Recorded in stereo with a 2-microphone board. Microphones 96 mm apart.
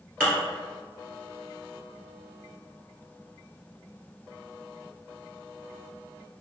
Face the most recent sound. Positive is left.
turn(degrees=10)  # may be behind; listen again after turning